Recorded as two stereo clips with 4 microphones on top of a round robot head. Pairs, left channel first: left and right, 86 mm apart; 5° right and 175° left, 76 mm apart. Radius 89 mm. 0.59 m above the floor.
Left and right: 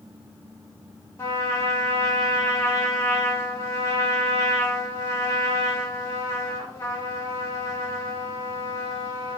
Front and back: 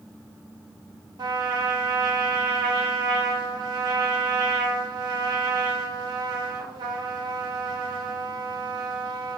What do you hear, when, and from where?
1.2 s a trumpet: 145° left, 0.8 m